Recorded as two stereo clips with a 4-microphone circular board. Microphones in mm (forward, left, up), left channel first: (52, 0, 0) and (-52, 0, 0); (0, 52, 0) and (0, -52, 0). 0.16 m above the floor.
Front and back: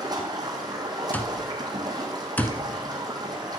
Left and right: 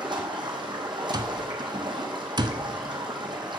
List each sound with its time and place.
0.0 s running water: 130° right, 1.9 m
1.1 s an alarm clock: 70° right, 0.7 m